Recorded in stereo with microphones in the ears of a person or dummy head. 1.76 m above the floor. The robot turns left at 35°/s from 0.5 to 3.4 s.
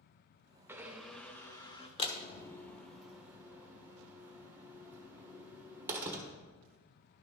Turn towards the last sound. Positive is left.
turn(degrees=-15)  # may be behind; listen again after turning